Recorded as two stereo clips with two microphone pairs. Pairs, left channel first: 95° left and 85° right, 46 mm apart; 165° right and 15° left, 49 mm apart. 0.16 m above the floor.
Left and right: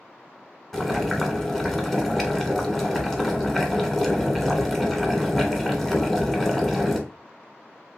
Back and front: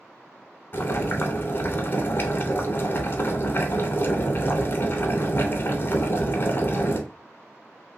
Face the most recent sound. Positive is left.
turn(degrees=180)